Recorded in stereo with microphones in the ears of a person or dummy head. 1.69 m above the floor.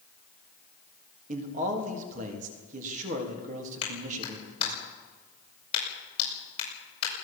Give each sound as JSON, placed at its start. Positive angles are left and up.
{"t": 1.3, "sound": "a man speaking", "side_deg": -45, "distance_m": 3.5}
{"t": 3.8, "sound": "a clap", "side_deg": 35, "distance_m": 7.0}